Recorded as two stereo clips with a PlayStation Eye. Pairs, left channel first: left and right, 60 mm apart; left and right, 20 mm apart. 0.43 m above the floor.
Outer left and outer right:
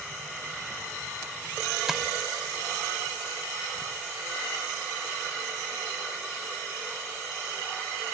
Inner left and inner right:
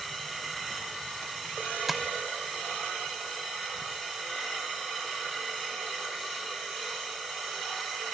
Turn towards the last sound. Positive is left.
turn(degrees=-10)  # may be behind; listen again after turning